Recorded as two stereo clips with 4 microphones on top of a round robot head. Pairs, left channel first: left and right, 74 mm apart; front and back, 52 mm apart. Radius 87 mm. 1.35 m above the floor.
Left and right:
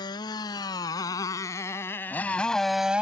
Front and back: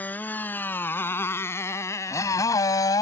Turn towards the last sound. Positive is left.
turn(degrees=-10)